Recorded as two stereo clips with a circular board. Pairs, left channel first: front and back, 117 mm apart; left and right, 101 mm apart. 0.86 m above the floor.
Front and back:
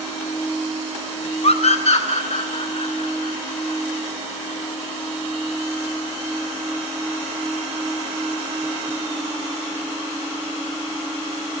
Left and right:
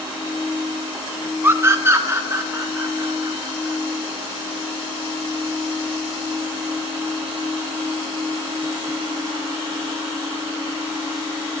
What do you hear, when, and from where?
1.4 s a scream: 20° right, 0.6 m; by 3.8 s 25° right, 4 m